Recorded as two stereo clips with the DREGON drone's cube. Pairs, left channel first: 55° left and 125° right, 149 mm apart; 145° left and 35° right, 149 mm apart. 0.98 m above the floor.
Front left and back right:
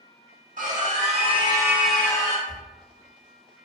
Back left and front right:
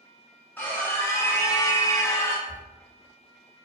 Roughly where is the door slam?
Behind right.